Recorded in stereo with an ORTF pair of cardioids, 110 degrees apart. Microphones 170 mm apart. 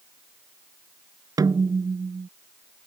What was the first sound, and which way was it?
A snare drum, 20° right.